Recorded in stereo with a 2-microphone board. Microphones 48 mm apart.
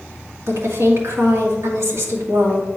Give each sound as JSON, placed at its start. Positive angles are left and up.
{"t": 0.5, "sound": "a woman speaking", "side_deg": -70, "distance_m": 1.7}